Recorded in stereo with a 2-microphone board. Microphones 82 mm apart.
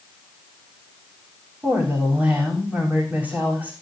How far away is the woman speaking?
About 6 m.